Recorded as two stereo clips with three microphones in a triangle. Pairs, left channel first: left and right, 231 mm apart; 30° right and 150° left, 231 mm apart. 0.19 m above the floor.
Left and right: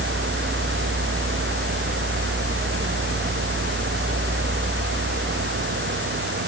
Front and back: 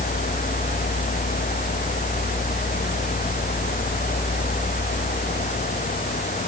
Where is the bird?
I don't hear a bird.